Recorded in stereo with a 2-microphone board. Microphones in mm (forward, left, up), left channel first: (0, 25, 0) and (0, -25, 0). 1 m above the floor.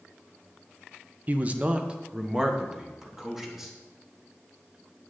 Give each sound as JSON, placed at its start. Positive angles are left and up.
{"t": 1.3, "sound": "a man speaking", "side_deg": -35, "distance_m": 0.6}